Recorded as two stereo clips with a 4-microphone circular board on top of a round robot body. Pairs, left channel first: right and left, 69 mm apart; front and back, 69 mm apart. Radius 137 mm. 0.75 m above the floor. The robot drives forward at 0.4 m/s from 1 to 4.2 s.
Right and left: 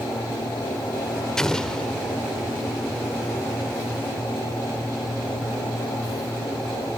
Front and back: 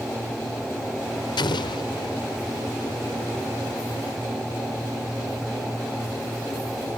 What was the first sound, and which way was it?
An explosion, 10° right.